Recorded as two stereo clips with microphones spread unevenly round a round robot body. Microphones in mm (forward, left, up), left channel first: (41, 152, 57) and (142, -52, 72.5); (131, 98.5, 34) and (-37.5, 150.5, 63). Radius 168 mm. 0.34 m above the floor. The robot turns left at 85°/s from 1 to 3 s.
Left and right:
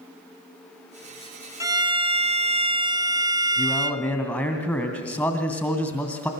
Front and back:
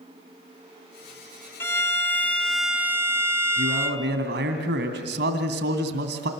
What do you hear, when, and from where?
1.6 s a violin: straight ahead, 1.5 m; by 4.0 s 120° right, 1.5 m
3.6 s a man speaking: 160° right, 2.5 m